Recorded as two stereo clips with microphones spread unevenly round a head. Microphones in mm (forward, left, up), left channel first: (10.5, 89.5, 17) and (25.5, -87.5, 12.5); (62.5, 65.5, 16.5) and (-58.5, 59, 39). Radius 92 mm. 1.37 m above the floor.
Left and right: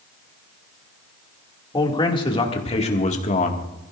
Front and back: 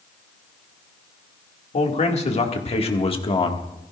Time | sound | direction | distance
1.7 | a man speaking | 30° left | 2.5 m